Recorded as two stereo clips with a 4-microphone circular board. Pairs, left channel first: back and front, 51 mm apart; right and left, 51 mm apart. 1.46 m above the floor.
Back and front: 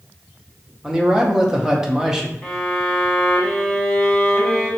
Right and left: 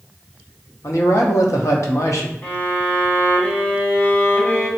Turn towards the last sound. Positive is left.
turn(degrees=-100)